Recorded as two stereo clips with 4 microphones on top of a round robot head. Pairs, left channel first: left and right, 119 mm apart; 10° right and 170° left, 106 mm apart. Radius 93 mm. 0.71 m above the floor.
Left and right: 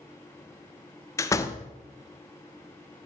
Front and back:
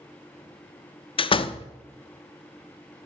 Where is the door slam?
25° left, 0.8 m.